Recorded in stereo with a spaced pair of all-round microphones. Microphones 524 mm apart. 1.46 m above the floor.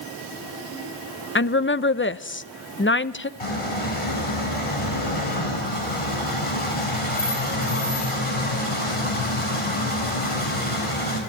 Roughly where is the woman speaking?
Left.